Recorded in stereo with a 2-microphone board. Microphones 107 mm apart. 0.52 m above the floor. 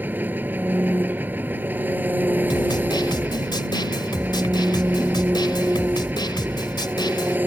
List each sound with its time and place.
0.0 s an engine running: 15° right (ahead or behind)
2.5 s a snare drum: 45° left (ahead or behind)